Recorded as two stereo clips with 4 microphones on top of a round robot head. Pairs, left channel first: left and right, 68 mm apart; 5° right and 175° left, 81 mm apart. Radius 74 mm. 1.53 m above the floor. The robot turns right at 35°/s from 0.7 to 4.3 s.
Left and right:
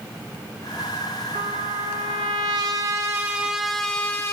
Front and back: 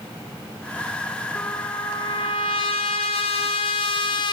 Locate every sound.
1.4 s a trumpet: 85° right, 1.0 m; by 4.3 s 20° left, 1.0 m